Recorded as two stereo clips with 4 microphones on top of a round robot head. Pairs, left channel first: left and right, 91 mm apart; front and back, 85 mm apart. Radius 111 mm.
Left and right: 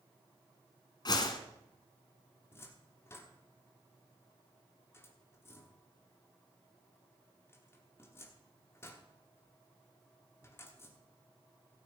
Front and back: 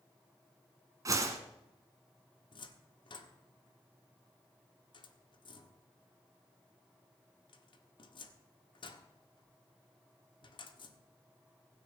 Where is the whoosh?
130° left, 1.5 m.